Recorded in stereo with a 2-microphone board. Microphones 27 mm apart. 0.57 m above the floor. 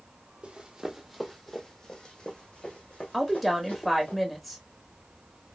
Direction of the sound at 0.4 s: 40° right (ahead or behind).